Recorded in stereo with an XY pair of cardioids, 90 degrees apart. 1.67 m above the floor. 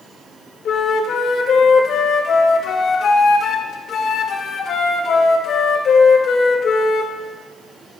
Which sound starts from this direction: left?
A flute, at 0.7 s.